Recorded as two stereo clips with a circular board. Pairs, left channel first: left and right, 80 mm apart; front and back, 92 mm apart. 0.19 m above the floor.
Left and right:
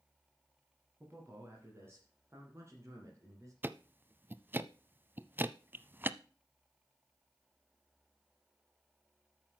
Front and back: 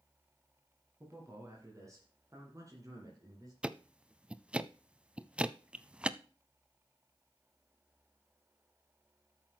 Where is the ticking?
115° right, 0.5 m.